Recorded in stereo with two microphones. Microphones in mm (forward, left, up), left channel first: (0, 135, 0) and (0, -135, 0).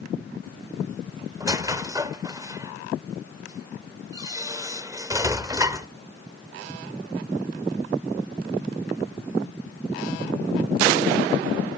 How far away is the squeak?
About 0.7 m.